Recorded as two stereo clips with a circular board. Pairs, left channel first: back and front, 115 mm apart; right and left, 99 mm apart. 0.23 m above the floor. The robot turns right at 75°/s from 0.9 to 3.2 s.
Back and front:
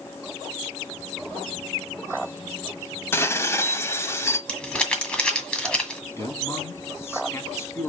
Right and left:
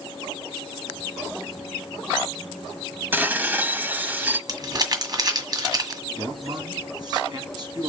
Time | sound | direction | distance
3.1 | dishes clattering | 135° left | 0.8 m
4.5 | crumpling | 100° left | 1.7 m
6.2 | a man speaking | 115° left | 2.5 m